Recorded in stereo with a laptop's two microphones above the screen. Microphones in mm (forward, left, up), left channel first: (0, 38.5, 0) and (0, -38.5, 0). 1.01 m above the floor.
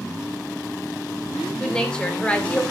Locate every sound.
1.6 s a woman speaking: 10° left (ahead or behind), 3 m; by 2.6 s 15° left (ahead or behind), 2.5 m